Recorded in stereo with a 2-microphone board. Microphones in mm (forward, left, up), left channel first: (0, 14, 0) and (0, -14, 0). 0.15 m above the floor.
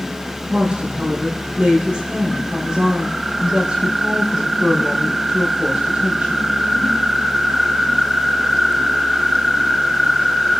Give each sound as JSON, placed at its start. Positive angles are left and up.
{"t": 0.5, "sound": "a woman speaking", "side_deg": -50, "distance_m": 4.5}